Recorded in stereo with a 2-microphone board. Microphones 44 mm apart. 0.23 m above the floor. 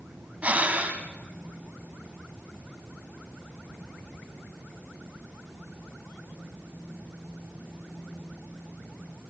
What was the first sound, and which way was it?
Breathing, 35° right (ahead or behind).